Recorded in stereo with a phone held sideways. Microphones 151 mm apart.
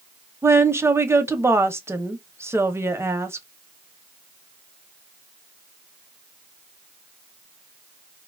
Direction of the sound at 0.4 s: 15° right (ahead or behind).